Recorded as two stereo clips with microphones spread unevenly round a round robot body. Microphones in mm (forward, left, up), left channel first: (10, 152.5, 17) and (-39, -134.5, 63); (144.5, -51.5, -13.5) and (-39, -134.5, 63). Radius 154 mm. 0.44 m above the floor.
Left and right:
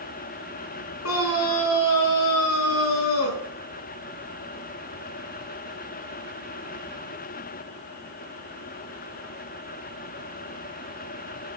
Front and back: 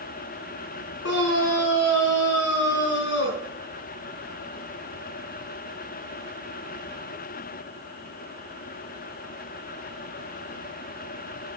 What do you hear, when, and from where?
1.0 s a scream: 40° left, 5 m